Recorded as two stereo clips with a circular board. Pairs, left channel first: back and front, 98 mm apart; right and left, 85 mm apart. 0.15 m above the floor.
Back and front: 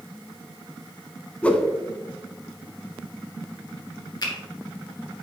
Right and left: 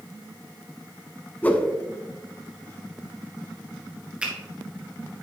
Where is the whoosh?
125° right, 0.6 m.